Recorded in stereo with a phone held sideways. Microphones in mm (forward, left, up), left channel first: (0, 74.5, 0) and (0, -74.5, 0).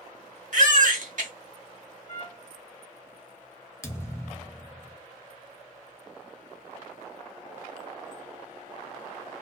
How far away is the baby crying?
About 0.9 m.